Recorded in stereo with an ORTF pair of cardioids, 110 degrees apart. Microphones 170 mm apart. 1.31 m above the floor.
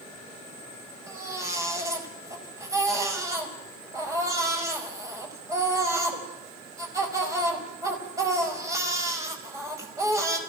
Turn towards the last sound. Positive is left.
turn(degrees=-20)